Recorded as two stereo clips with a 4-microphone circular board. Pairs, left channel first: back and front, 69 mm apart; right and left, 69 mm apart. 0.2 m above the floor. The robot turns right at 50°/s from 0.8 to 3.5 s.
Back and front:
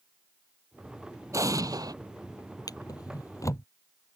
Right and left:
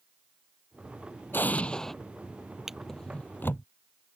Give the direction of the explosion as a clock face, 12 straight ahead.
1 o'clock.